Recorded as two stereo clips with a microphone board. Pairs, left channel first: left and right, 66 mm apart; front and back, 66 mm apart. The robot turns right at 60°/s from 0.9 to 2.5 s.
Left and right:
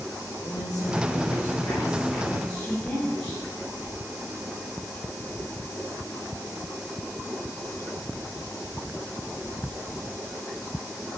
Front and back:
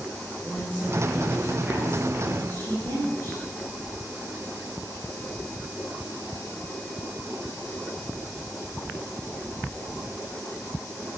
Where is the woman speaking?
70° left, 9 m; by 3.5 s 170° left, 9 m.